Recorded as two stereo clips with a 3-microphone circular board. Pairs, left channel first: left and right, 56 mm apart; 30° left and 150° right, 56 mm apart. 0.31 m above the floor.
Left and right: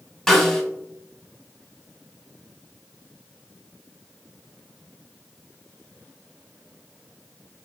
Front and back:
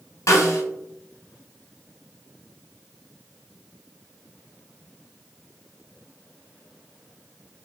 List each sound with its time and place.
0.3 s a snare drum: 10° left, 0.6 m